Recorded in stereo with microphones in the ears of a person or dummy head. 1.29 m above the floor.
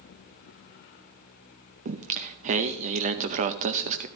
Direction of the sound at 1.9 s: 35° right (ahead or behind).